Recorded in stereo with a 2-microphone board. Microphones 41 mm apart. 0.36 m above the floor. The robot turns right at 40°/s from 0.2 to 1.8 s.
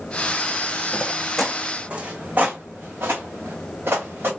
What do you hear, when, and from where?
0.9 s footsteps: 35° left (ahead or behind), 1.1 m; by 4.3 s 65° right (ahead or behind), 2.5 m